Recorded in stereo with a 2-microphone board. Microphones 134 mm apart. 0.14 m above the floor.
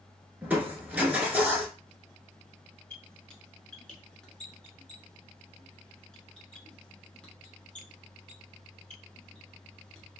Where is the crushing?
10° right (ahead or behind), 0.9 m.